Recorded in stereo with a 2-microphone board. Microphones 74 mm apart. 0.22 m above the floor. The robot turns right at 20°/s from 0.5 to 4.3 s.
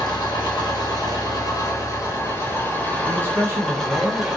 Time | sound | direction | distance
0.0 | an engine running | 105° left | 1.0 m
3.1 | a man speaking | 35° right (ahead or behind) | 1.4 m